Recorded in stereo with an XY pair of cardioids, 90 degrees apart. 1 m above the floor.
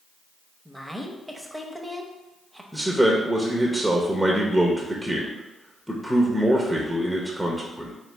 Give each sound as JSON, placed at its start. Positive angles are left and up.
{"t": 0.7, "sound": "a woman speaking", "azimuth_deg": 0, "distance_m": 0.8}
{"t": 2.7, "sound": "a man speaking", "azimuth_deg": -5, "distance_m": 0.7}